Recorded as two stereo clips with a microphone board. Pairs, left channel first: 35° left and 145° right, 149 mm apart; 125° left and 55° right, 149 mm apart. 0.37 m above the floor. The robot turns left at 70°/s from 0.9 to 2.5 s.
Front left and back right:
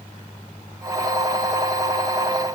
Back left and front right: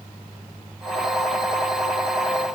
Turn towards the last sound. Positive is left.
No sound to turn to.